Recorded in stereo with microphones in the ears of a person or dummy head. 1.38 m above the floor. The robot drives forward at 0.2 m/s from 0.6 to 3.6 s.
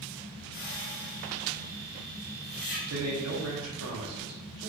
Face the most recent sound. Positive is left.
turn(degrees=-80)